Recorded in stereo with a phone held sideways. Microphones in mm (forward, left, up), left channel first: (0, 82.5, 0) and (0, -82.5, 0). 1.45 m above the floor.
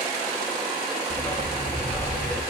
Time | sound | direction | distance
1.1 | a dog barking | 30° left (ahead or behind) | 9 m